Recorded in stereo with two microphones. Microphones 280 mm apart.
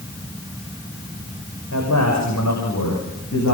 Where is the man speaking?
70° left (ahead or behind), 8.5 m; by 3.5 s 75° left (ahead or behind), 10 m.